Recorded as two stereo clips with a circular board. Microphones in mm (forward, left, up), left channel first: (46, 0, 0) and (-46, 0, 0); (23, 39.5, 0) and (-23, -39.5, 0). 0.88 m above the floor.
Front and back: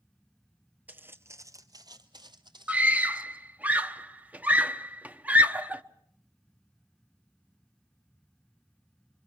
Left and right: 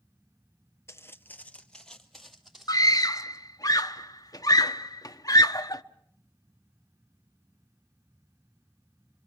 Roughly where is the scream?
Left.